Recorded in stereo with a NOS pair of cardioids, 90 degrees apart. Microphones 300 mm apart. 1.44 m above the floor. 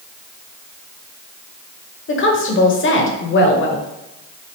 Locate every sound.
2.1 s a woman speaking: 45° left, 1.0 m